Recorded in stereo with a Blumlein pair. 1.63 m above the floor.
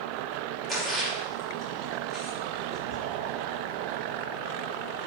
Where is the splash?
Straight ahead, 2.5 m.